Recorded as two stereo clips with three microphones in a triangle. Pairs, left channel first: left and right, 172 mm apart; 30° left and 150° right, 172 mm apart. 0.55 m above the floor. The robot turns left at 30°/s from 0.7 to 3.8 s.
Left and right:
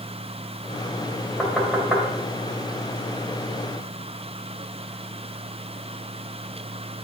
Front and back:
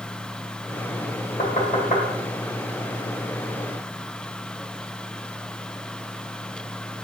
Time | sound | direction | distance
1.4 | knocking | 5° left | 1.9 m